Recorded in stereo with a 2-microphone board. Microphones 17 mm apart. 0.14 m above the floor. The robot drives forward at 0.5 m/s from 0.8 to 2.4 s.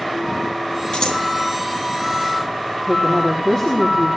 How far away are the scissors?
About 3 m.